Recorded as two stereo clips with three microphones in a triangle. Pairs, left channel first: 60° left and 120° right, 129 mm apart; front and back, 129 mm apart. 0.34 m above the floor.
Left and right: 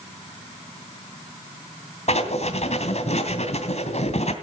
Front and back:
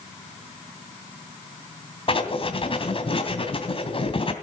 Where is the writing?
40° left, 2.5 m.